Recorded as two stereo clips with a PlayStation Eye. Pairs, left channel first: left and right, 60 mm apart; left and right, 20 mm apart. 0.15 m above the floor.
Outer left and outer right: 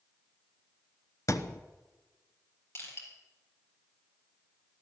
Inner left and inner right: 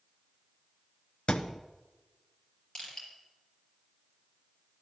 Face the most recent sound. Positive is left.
turn(degrees=40)  # may be behind; listen again after turning